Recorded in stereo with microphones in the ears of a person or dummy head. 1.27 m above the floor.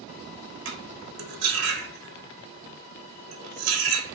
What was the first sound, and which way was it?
Cutlery clinking, 70° right (ahead or behind).